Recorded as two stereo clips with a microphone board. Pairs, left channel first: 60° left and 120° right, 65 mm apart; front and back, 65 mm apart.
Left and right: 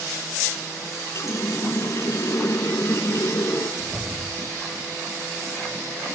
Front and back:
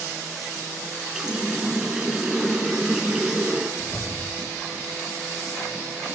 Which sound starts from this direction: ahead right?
A whoosh, at 3.8 s.